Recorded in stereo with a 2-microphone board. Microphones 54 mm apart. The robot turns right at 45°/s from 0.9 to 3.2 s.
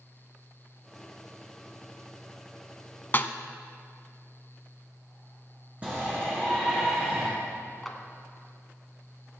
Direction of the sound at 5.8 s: 25° right (ahead or behind).